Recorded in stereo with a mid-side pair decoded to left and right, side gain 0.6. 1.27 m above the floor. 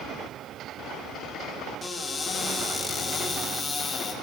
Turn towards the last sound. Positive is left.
turn(degrees=20)